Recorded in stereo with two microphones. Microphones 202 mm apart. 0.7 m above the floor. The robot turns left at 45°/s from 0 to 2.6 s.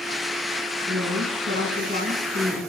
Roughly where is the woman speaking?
Right.